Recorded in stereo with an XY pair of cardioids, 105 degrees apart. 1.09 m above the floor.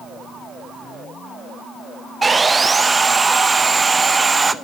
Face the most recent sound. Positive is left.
turn(degrees=-25)